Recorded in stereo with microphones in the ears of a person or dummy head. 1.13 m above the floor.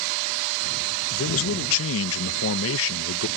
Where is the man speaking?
65° left (ahead or behind).